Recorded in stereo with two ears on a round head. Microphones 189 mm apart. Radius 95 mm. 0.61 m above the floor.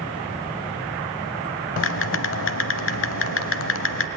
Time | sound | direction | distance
1.8 | typing on a keyboard | 65° left (ahead or behind) | 0.9 m